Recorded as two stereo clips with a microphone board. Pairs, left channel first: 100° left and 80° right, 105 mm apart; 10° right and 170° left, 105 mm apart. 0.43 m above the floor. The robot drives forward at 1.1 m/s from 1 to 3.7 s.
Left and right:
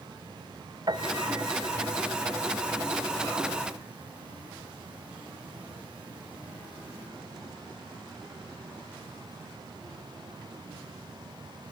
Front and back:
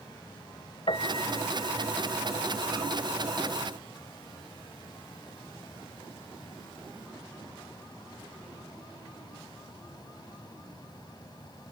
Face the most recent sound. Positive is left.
turn(degrees=-155)